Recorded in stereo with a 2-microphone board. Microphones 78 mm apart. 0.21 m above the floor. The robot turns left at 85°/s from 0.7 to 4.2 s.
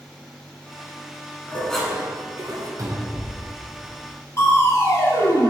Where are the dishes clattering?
25° left, 1.3 m; by 2.7 s 75° right, 1.3 m.